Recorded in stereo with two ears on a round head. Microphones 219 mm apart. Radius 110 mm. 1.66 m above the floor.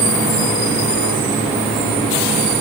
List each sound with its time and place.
Only background noise.